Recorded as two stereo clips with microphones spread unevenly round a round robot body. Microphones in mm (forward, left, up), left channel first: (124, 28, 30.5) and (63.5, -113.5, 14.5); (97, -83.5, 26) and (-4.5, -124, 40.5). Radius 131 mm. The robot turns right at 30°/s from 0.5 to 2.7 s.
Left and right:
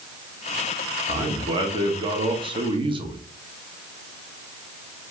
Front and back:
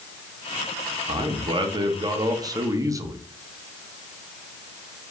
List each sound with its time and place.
1.1 s a man speaking: 155° right, 1.1 m; by 3.2 s 105° right, 1.1 m